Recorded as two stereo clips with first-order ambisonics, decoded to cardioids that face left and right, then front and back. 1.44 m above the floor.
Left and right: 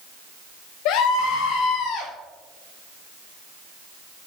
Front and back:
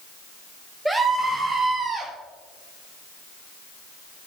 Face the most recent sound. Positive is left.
turn(degrees=105)